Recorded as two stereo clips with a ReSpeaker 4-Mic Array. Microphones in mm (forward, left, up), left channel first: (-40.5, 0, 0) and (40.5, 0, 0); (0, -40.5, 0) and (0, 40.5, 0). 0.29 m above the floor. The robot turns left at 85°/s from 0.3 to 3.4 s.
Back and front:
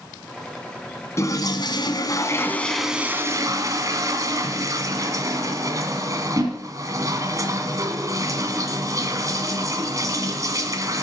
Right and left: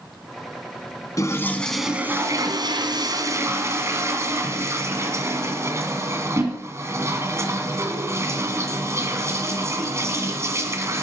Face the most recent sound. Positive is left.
turn(degrees=40)